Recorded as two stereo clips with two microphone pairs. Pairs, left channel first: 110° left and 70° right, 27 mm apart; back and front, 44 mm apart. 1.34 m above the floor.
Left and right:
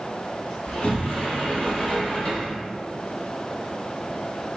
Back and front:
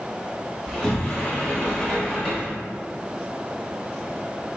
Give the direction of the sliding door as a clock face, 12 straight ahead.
8 o'clock.